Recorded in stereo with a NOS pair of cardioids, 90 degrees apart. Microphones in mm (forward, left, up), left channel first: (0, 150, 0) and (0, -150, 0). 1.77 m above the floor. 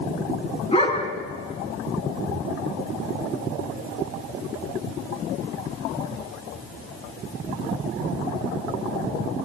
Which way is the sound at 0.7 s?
20° left.